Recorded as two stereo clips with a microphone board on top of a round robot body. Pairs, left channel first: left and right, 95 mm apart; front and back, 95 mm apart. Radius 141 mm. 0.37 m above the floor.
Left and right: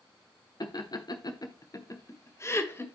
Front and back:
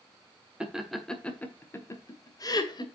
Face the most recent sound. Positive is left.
turn(degrees=30)